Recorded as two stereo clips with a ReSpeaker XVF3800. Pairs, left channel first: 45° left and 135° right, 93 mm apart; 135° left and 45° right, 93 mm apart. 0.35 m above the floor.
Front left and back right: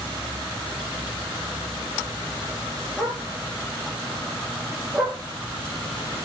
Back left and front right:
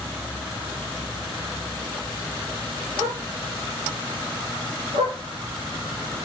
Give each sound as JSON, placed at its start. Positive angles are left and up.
{"t": 3.0, "sound": "a dog barking", "azimuth_deg": -45, "distance_m": 2.5}